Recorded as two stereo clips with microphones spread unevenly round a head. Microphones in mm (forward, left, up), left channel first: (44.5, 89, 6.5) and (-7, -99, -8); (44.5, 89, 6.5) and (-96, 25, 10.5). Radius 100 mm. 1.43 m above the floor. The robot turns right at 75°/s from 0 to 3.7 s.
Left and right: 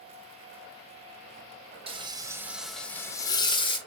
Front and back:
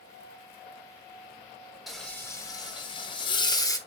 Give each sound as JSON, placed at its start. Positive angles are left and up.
{"t": 1.9, "sound": "frying", "azimuth_deg": -70, "distance_m": 0.6}